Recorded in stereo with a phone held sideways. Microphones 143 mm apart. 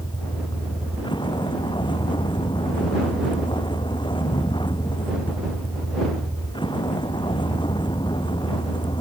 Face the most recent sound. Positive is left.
turn(degrees=35)  # may be behind; listen again after turning